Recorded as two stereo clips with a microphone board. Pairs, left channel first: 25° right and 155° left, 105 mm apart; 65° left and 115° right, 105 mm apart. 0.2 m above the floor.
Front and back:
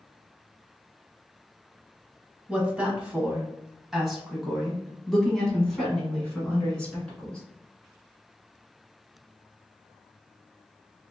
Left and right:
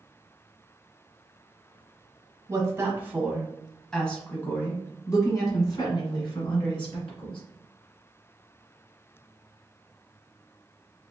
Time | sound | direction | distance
2.5 | a woman speaking | 135° right | 1.2 m